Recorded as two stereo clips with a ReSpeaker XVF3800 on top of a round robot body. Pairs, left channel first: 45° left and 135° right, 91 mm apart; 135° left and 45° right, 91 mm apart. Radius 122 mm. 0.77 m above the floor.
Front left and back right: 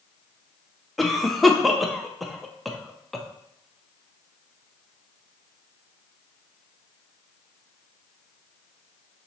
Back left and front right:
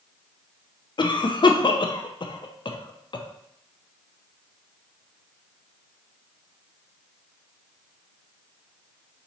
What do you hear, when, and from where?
1.0 s a cough: 135° left, 0.6 m